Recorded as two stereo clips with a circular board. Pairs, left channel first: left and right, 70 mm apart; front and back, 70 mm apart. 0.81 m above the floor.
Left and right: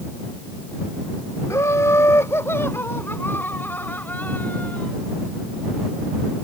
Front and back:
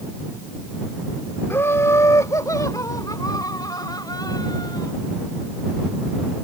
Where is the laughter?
50° left; by 4.9 s 20° left.